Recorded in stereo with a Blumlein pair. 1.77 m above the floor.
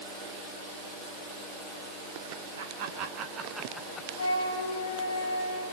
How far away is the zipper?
I don't hear a zipper.